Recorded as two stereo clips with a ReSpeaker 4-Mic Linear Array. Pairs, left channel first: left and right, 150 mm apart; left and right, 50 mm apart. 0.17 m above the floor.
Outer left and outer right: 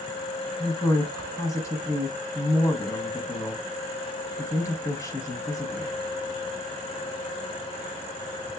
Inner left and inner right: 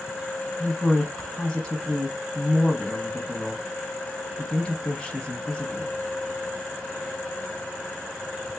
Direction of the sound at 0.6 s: 20° left (ahead or behind).